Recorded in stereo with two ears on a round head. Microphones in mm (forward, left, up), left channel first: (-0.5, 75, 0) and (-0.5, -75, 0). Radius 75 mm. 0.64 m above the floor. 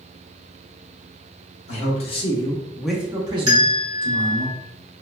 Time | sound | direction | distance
1.7 | a man speaking | 45° left (ahead or behind) | 1.0 m
3.5 | a bell | 25° right (ahead or behind) | 1.0 m